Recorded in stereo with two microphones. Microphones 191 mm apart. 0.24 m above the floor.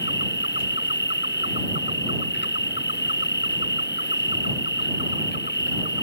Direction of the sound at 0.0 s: 70° left (ahead or behind).